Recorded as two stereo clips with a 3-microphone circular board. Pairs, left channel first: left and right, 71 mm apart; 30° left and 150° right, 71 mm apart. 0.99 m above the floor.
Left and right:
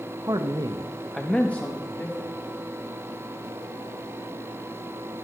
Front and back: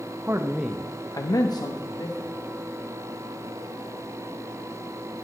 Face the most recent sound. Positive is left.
turn(degrees=30)